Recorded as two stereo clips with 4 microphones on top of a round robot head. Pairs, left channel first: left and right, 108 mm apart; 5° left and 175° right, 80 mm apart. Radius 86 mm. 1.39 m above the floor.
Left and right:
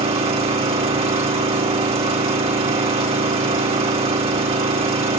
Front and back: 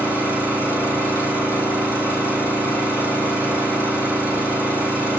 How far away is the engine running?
About 6.5 m.